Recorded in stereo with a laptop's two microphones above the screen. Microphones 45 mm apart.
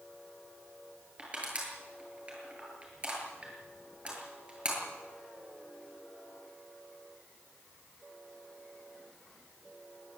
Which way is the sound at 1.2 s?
30° right (ahead or behind).